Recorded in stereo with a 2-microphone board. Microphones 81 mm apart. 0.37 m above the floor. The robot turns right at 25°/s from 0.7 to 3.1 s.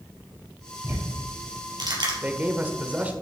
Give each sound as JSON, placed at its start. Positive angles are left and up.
{"t": 0.8, "sound": "ticking", "side_deg": -30, "distance_m": 3.0}
{"t": 2.2, "sound": "a man speaking", "side_deg": -20, "distance_m": 1.1}